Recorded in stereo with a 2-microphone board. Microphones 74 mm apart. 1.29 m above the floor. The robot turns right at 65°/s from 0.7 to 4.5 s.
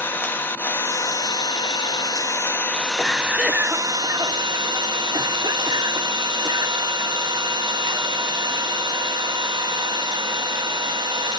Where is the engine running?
30° left, 1.1 m; by 11.4 s 85° right, 1.1 m.